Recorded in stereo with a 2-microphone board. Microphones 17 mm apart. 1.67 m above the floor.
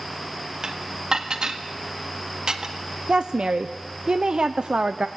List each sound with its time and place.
0.6 s dishes clattering: 50° right (ahead or behind), 1.6 m
3.1 s a woman speaking: 65° right (ahead or behind), 0.7 m